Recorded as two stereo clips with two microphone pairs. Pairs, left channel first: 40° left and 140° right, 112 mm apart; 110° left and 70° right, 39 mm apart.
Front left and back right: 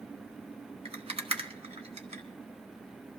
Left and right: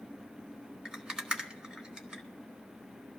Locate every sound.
0.8 s a rattle: 140° right, 1.5 m